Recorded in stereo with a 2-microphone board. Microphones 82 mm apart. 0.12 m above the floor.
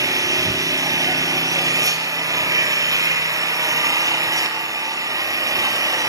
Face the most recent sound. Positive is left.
turn(degrees=-45)  # may be behind; listen again after turning